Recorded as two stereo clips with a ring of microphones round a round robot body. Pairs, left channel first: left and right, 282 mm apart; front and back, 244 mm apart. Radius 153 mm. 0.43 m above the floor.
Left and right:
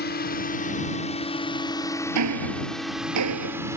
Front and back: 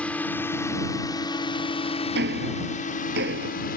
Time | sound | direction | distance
0.0 | a drone | 80° left | ?
2.1 | ticking | 125° right | ?